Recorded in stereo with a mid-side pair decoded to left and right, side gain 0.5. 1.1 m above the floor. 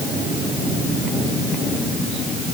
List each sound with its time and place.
Only background noise.